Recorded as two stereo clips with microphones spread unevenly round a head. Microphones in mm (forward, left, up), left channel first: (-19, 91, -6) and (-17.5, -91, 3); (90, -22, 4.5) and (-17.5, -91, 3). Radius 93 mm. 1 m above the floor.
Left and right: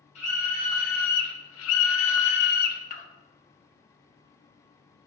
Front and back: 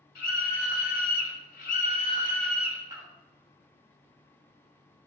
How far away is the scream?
About 1.6 m.